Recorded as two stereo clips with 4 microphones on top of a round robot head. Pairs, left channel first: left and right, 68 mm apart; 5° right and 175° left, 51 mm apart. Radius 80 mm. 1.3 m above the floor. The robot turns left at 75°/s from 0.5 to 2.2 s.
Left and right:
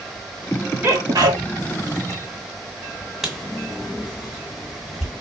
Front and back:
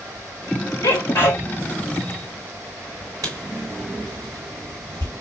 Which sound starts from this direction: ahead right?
A sneeze, at 0.8 s.